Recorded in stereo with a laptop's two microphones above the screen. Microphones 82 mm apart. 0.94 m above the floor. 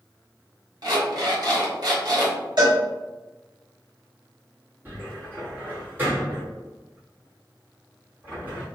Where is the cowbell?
60° right (ahead or behind), 1.5 m.